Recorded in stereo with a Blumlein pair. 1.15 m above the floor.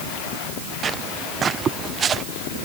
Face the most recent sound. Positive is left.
turn(degrees=-20)